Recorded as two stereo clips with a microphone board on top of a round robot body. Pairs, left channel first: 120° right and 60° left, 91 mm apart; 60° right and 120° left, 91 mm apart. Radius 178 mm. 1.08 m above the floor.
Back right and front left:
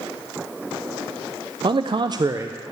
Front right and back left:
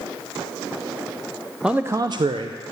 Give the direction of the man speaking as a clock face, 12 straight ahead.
11 o'clock.